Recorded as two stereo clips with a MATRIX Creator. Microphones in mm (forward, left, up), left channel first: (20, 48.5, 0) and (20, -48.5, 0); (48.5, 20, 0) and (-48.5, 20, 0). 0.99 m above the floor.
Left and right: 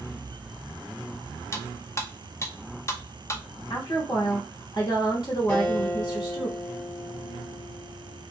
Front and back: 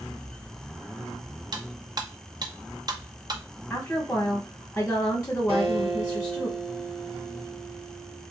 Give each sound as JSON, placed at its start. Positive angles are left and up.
{"t": 1.5, "sound": "cutlery clinking", "azimuth_deg": 145, "distance_m": 0.5}
{"t": 3.7, "sound": "a woman speaking", "azimuth_deg": 60, "distance_m": 1.4}
{"t": 5.5, "sound": "a guitar", "azimuth_deg": 165, "distance_m": 1.4}